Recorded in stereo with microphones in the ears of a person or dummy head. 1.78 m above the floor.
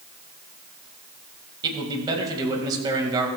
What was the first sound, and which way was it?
A man speaking, 25° right (ahead or behind).